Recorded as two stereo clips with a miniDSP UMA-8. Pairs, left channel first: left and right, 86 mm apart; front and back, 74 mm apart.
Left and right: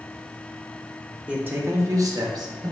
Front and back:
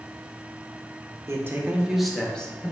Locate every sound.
1.3 s a man speaking: 155° right, 0.6 m; by 2.7 s 65° right, 0.8 m